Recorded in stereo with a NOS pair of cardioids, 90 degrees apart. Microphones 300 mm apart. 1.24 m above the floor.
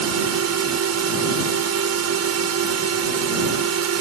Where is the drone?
60° right.